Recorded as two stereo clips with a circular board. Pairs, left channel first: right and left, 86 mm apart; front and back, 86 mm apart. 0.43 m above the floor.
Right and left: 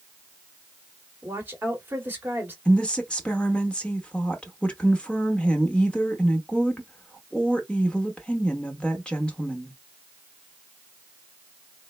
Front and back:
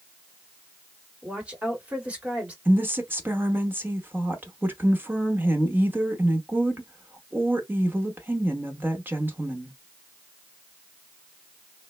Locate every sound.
1.2 s a woman speaking: 125° left, 1.2 m
2.6 s a woman speaking: 155° right, 0.8 m